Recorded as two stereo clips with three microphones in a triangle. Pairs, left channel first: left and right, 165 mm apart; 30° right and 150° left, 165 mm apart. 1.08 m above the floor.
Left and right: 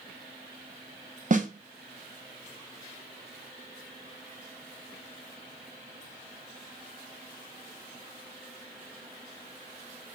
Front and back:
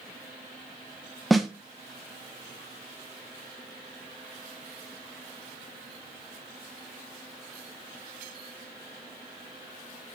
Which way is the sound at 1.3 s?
120° right.